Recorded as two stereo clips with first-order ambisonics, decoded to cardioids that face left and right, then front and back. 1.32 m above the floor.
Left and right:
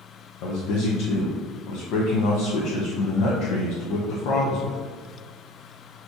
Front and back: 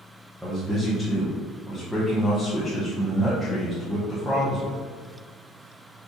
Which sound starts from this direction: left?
A man speaking, at 0.4 s.